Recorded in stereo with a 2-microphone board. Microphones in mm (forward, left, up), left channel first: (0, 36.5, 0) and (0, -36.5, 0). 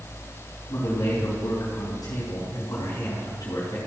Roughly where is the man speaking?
Left.